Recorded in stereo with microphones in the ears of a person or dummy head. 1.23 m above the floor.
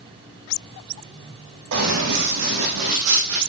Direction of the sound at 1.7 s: 75° right (ahead or behind).